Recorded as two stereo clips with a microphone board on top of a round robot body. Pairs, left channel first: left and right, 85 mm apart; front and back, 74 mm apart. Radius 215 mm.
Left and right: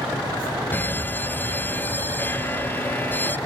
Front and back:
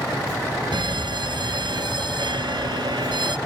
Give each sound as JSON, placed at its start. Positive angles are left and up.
{"t": 0.7, "sound": "a fire alarm", "azimuth_deg": 160}